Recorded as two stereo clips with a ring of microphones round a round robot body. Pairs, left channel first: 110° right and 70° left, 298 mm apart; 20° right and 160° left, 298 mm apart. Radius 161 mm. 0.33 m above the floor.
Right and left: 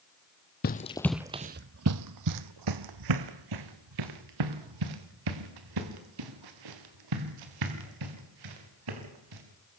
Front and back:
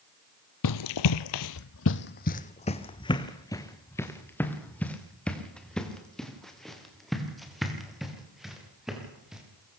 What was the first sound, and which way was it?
Running footsteps, 55° right.